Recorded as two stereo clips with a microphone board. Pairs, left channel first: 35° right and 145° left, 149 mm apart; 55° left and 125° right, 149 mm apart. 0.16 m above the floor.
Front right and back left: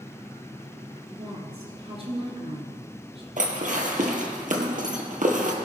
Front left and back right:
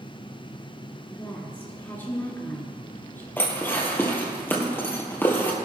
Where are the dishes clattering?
130° left, 1.9 m.